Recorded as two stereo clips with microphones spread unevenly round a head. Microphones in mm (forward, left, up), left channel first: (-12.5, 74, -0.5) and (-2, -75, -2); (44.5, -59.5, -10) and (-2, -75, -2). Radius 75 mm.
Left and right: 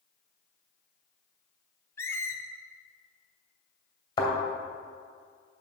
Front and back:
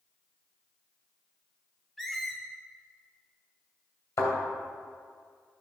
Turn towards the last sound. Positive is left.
turn(degrees=35)